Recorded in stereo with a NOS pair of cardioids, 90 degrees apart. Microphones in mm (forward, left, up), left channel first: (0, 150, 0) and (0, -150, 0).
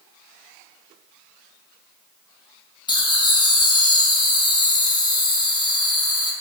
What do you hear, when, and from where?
2.9 s laughter: 15° left, 1.0 m